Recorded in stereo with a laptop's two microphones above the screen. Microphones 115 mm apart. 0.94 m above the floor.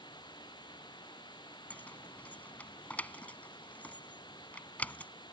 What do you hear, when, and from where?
0.0 s running water: 40° left (ahead or behind)
1.7 s keys jangling: 10° left (ahead or behind)